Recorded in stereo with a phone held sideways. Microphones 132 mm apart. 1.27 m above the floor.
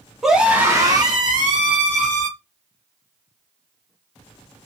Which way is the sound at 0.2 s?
Centre (ahead or behind).